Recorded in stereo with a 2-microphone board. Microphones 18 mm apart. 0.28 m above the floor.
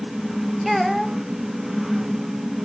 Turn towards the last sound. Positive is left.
turn(degrees=-5)  # may be behind; listen again after turning